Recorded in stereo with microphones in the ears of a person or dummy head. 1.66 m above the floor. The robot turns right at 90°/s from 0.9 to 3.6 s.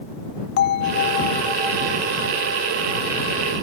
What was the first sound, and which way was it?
A bell, 115° left.